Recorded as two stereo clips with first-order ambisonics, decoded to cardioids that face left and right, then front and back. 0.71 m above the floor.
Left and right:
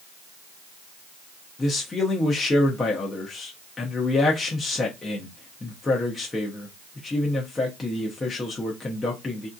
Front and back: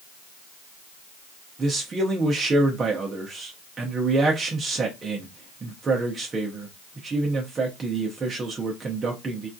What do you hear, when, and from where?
1.6 s a man speaking: 145° left, 0.6 m